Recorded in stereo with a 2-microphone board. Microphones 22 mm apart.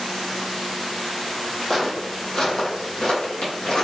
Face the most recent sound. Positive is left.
turn(degrees=60)  # may be behind; listen again after turning